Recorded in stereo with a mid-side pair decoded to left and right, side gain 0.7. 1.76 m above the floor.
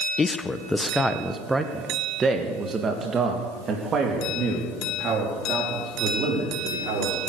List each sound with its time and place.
0.2 s a man speaking: 25° left, 1.2 m; by 7.2 s 45° right, 5 m